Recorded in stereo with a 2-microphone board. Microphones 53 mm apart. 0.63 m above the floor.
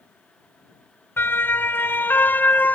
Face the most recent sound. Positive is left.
turn(degrees=35)  # may be behind; listen again after turning